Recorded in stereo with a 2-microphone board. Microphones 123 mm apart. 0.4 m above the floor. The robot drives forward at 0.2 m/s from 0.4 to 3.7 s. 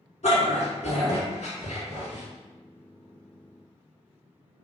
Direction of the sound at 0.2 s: 75° left (ahead or behind).